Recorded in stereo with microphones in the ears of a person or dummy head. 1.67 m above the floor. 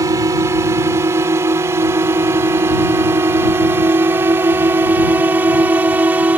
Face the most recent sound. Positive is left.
turn(degrees=-10)  # may be behind; listen again after turning